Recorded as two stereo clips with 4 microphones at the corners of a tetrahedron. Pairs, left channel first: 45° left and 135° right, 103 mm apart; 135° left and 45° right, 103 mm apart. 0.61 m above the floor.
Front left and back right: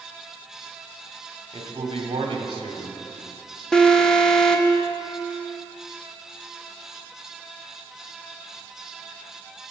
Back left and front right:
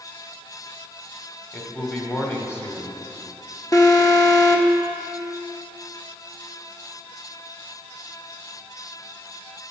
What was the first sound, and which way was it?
A man speaking, 160° right.